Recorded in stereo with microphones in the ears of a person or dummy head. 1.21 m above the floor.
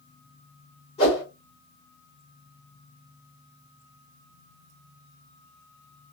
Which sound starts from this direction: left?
A whoosh, at 1.0 s.